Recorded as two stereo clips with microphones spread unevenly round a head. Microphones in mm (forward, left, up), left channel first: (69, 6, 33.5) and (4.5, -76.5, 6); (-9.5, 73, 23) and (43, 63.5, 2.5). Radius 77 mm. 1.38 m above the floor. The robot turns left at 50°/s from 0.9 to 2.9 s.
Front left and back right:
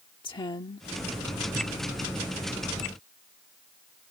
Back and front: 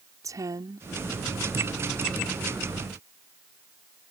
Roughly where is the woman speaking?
Ahead.